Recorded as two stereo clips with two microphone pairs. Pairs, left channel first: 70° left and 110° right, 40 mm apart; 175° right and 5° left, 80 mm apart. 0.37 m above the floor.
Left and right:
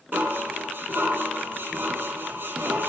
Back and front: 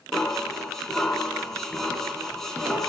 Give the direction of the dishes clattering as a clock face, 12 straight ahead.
3 o'clock.